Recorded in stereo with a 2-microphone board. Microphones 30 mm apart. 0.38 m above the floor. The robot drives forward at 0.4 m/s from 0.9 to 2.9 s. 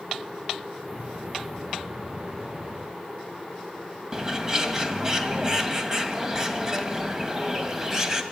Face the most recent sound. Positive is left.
turn(degrees=-20)  # may be behind; listen again after turning